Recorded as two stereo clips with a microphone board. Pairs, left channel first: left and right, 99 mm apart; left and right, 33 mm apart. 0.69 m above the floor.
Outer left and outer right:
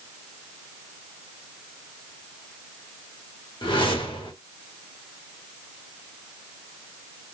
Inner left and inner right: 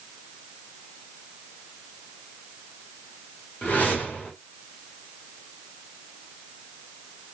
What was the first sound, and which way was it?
A whoosh, 55° left (ahead or behind).